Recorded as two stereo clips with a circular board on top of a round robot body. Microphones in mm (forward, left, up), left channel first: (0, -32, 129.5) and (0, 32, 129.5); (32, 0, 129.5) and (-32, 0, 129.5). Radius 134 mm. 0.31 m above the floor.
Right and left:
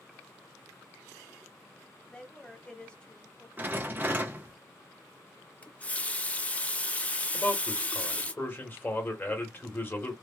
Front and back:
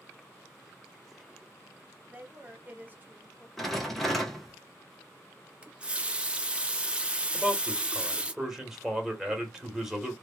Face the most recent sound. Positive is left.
turn(degrees=-105)